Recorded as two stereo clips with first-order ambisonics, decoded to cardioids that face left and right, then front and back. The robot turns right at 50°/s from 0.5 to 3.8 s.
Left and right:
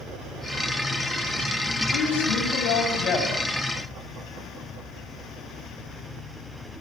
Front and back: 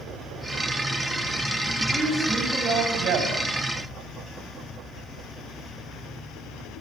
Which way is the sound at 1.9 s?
80° left.